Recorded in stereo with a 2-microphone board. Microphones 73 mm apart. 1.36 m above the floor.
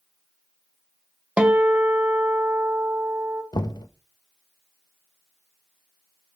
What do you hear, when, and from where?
1.4 s a guitar: 15° right (ahead or behind), 1.4 m
3.5 s knocking: 75° left (ahead or behind), 1.1 m